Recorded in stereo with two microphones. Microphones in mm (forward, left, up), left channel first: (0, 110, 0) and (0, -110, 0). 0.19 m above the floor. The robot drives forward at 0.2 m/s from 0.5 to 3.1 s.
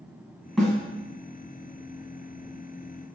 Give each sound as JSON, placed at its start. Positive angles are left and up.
{"t": 0.6, "sound": "a snare drum", "side_deg": -5, "distance_m": 1.5}